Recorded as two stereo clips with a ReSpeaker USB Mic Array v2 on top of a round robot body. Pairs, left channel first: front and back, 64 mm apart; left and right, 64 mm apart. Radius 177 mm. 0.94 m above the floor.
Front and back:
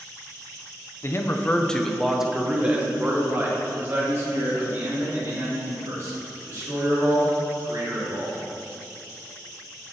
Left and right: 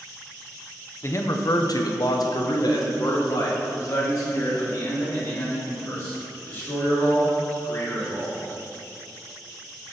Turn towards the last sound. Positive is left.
turn(degrees=140)